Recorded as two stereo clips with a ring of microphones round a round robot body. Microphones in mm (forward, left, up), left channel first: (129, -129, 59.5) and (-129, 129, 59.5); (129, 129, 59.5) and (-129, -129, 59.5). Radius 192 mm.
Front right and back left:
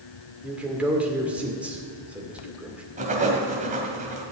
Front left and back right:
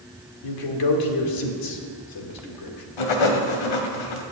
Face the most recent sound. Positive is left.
turn(degrees=65)